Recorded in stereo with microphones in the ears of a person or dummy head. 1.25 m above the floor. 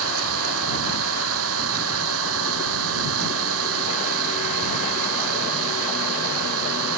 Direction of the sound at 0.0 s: 85° right.